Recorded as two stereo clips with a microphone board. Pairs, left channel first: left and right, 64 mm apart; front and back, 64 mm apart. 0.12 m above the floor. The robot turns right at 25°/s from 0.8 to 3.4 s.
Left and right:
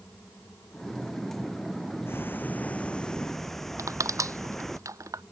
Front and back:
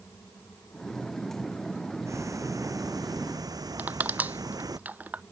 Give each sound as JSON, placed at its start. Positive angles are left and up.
{"t": 2.1, "sound": "ticking", "azimuth_deg": 140}
{"t": 3.8, "sound": "crushing", "azimuth_deg": -115}